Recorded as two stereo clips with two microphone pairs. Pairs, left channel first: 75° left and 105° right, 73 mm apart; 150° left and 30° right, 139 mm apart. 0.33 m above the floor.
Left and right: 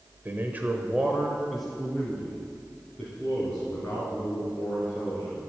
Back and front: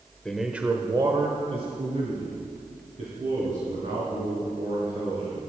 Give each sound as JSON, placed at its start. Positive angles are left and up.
{"t": 0.2, "sound": "a man speaking", "azimuth_deg": -130, "distance_m": 1.1}